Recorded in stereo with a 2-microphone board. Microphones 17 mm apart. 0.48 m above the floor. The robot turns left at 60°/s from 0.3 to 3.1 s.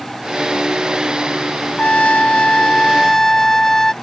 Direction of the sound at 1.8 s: 105° left.